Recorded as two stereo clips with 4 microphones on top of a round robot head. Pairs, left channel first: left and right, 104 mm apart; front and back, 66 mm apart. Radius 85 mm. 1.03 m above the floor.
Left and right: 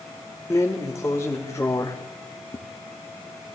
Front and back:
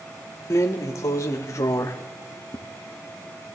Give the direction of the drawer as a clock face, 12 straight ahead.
11 o'clock.